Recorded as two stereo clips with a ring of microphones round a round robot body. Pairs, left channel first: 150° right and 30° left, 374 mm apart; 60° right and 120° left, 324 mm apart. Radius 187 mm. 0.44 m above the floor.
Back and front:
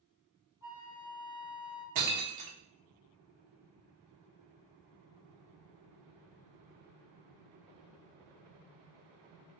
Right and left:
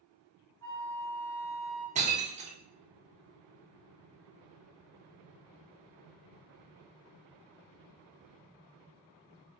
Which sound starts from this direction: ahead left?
Breaking glass, at 1.9 s.